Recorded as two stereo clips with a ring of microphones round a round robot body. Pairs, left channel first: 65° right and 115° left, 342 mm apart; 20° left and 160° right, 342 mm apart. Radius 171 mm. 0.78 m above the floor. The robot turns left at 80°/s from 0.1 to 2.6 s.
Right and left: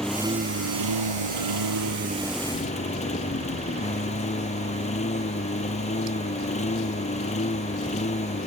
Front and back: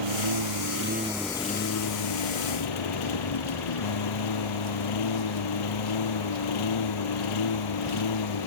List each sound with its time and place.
0.0 s a lawn mower: 155° right; by 8.5 s 5° left